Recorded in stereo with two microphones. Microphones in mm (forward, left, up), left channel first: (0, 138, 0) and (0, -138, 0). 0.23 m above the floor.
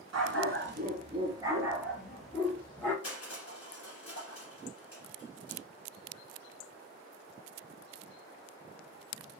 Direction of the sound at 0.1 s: 70° right (ahead or behind).